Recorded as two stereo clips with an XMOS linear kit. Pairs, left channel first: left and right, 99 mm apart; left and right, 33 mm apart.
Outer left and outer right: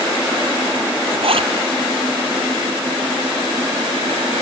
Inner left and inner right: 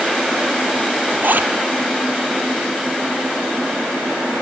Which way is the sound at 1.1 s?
75° right (ahead or behind).